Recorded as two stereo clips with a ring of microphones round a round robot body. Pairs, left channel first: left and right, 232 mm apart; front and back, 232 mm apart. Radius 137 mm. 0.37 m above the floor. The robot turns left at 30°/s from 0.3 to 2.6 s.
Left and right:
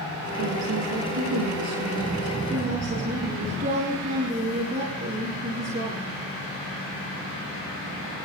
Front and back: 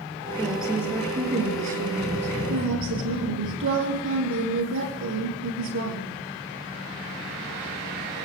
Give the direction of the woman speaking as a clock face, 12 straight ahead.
3 o'clock.